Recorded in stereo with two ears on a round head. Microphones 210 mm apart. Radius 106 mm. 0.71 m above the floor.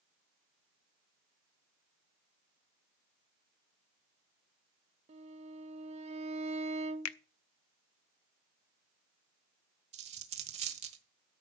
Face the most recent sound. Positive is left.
turn(degrees=-30)  # may be behind; listen again after turning